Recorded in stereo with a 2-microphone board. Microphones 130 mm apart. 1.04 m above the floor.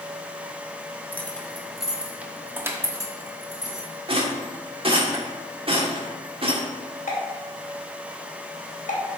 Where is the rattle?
45° right (ahead or behind), 1.5 m.